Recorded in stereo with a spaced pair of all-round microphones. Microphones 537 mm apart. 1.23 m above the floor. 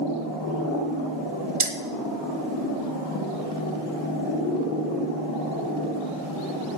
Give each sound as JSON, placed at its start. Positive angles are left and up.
{"t": 1.6, "sound": "keys jangling", "side_deg": -65, "distance_m": 1.1}